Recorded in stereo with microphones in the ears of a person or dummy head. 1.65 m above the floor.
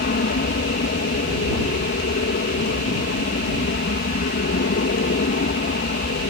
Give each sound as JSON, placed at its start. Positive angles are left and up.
{"t": 0.0, "sound": "an aircraft", "side_deg": 50}